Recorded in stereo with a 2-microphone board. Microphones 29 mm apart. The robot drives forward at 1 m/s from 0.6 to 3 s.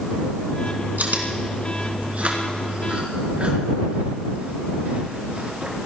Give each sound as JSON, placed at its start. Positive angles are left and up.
{"t": 1.0, "sound": "chewing", "side_deg": -70, "distance_m": 2.5}